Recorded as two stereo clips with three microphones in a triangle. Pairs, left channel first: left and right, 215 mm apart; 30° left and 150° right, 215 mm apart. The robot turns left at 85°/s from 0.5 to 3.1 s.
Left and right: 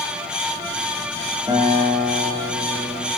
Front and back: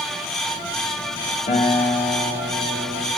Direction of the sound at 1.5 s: 25° right.